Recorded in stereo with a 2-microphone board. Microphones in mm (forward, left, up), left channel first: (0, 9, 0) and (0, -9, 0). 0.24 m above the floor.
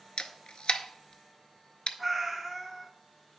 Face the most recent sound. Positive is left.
turn(degrees=-10)  # may be behind; listen again after turning